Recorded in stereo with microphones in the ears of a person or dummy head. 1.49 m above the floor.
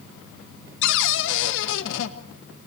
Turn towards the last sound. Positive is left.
turn(degrees=75)  # may be behind; listen again after turning